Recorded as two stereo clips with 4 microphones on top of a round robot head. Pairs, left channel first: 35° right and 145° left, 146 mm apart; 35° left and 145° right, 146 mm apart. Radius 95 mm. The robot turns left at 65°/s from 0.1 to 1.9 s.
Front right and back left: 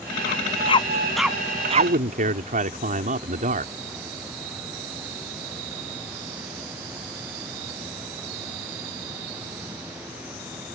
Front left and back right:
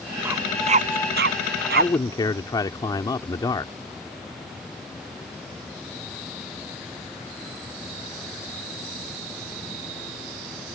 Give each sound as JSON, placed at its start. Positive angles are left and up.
{"t": 0.2, "sound": "a dog barking", "azimuth_deg": -65}
{"t": 1.8, "sound": "a man speaking", "azimuth_deg": 115}